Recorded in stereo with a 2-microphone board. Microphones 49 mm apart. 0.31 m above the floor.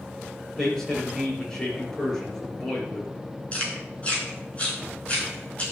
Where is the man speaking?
10° left (ahead or behind), 6 m.